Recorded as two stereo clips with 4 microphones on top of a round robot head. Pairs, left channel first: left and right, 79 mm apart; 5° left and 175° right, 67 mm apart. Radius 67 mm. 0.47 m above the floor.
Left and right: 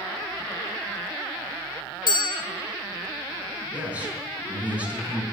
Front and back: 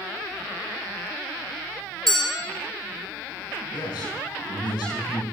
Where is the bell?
85° left, 1.6 m.